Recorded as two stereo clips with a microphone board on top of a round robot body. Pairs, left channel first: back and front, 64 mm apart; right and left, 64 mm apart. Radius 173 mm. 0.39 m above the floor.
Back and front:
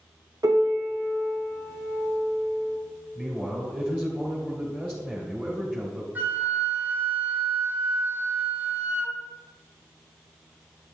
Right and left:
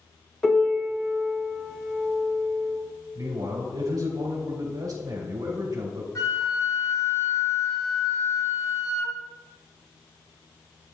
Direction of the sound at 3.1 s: 65° left.